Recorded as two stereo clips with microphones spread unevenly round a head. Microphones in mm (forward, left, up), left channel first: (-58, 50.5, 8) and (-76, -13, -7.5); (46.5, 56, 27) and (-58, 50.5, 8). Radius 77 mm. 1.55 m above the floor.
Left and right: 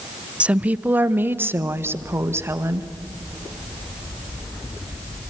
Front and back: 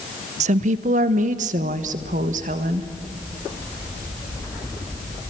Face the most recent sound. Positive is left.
turn(degrees=-155)